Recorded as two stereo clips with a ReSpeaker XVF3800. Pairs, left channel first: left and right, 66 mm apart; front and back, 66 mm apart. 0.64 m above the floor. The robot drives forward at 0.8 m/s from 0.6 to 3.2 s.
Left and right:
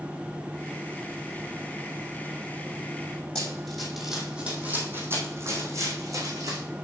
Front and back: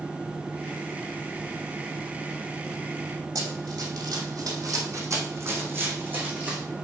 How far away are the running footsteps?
About 2.0 m.